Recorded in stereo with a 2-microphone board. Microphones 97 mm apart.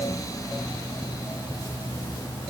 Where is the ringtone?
I don't hear a ringtone.